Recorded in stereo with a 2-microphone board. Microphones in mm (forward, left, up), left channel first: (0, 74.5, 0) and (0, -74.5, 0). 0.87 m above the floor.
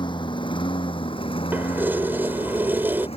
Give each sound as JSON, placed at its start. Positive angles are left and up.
{"t": 0.0, "sound": "a lawn mower", "side_deg": 30}
{"t": 1.5, "sound": "keys jangling", "side_deg": -15}